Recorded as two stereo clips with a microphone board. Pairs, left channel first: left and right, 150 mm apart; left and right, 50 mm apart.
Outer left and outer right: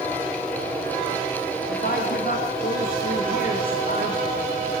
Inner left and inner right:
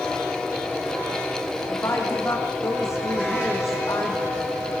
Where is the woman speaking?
65° left (ahead or behind), 6.5 m.